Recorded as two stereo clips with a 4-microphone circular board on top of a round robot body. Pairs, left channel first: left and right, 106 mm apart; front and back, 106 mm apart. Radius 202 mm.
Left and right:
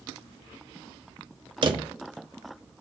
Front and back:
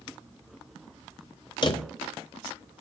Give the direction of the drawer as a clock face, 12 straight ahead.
2 o'clock.